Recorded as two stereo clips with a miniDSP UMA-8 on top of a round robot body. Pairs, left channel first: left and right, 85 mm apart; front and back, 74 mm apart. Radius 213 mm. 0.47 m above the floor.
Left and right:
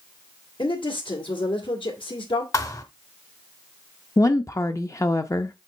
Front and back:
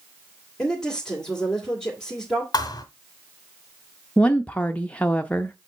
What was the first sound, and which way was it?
A woman speaking, 85° left.